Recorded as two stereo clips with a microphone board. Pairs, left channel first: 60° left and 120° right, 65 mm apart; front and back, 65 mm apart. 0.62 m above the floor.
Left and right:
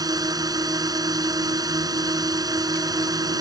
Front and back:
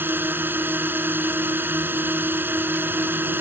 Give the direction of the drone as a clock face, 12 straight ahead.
4 o'clock.